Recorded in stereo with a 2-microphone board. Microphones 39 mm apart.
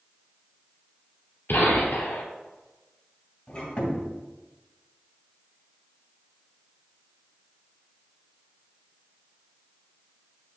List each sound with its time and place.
1.5 s a gunshot: 65° left (ahead or behind), 2 m
3.5 s a squeak: 35° left (ahead or behind), 2.5 m